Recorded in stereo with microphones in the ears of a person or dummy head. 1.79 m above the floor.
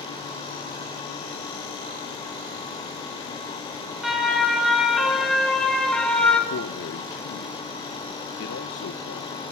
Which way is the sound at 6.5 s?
50° left (ahead or behind).